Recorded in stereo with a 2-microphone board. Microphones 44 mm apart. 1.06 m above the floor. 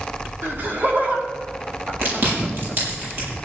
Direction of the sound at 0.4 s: 45° right (ahead or behind).